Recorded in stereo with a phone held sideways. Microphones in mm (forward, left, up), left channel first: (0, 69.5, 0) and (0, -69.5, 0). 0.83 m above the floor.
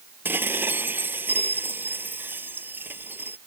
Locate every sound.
0.2 s dishes clattering: 15° right (ahead or behind)